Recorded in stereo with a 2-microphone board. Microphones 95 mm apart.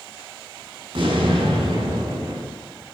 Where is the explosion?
55° right (ahead or behind), 5.5 m.